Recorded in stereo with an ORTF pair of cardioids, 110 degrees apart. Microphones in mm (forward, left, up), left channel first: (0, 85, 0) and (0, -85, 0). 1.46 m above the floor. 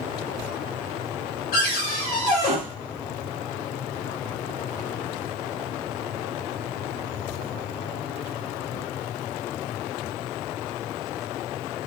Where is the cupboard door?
60° left, 1.5 m.